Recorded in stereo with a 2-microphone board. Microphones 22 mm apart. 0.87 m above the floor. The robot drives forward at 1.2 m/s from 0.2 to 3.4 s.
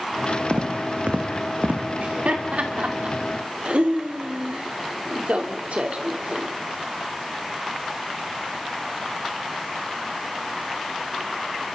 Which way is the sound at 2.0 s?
60° right (ahead or behind).